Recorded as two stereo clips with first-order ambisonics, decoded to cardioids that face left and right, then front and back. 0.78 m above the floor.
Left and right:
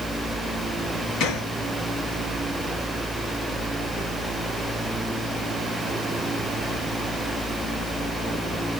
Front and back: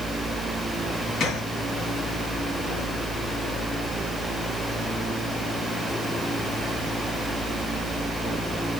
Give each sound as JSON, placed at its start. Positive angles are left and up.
{"t": 1.2, "sound": "a gunshot", "azimuth_deg": 60, "distance_m": 1.8}